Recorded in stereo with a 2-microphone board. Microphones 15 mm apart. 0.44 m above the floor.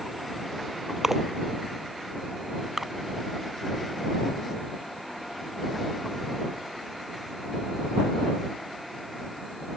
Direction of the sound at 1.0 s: 40° right (ahead or behind).